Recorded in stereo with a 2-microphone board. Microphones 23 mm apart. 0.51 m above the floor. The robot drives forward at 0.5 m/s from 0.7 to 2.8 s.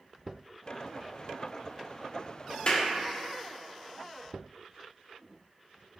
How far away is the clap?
About 0.6 m.